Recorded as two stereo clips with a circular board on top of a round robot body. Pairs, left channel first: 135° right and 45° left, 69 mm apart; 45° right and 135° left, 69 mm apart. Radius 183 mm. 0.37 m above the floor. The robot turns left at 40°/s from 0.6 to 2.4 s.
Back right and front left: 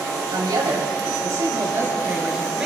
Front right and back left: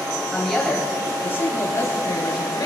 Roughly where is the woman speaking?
Ahead left.